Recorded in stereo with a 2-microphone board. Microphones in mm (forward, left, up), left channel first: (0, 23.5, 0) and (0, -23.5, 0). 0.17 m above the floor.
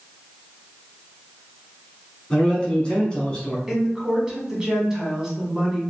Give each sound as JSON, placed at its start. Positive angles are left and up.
{"t": 2.3, "sound": "a man speaking", "side_deg": 20, "distance_m": 1.2}
{"t": 3.7, "sound": "a woman speaking", "side_deg": -15, "distance_m": 1.0}